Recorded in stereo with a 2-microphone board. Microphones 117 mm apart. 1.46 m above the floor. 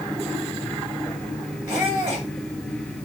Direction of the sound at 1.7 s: 45° right (ahead or behind).